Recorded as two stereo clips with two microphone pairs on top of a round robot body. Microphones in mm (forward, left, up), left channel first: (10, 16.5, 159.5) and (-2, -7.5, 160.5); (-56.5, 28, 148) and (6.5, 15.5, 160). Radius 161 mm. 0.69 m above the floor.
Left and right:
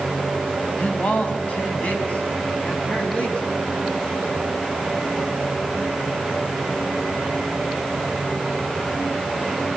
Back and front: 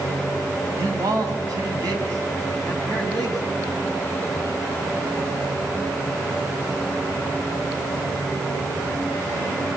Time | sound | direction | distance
0.8 | a man speaking | 20° left | 7 m